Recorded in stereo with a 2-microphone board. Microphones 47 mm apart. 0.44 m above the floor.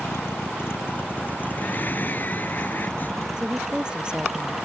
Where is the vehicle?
65° left (ahead or behind); by 4.7 s 15° right (ahead or behind).